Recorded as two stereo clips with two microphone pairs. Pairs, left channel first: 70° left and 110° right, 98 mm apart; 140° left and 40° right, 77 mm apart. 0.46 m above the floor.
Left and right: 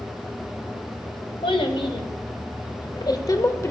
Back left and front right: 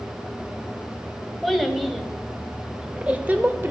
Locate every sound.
1.4 s a child speaking: 45° left, 1.9 m; by 3.7 s 15° left, 1.0 m